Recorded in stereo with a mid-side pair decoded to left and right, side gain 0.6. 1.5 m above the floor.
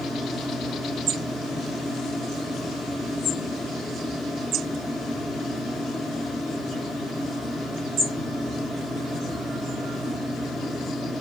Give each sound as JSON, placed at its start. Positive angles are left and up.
{"t": 0.0, "sound": "a fan", "azimuth_deg": 5, "distance_m": 0.7}